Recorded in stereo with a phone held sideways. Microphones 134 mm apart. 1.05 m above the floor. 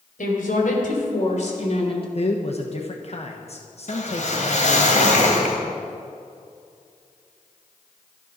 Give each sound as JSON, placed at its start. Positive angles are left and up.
{"t": 0.2, "sound": "a woman speaking", "side_deg": 80, "distance_m": 4.0}
{"t": 2.1, "sound": "a man speaking", "side_deg": 50, "distance_m": 1.1}
{"t": 3.9, "sound": "a whoosh", "side_deg": 60, "distance_m": 2.5}